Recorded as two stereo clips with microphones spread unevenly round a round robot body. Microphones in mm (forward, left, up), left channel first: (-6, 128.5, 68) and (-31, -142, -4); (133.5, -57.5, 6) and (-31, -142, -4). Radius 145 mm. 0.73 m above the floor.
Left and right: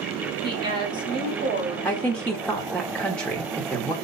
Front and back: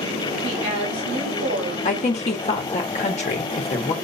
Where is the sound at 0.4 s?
165° right, 4 m.